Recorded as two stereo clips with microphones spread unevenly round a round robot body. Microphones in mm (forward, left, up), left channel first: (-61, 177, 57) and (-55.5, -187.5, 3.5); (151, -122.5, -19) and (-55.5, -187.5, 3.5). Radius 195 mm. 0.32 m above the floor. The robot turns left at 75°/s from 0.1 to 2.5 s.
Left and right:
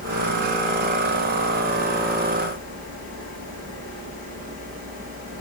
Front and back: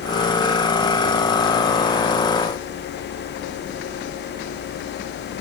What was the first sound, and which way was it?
Only background noise.